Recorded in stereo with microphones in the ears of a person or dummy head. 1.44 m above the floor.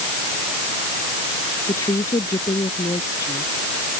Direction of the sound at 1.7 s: 20° left (ahead or behind).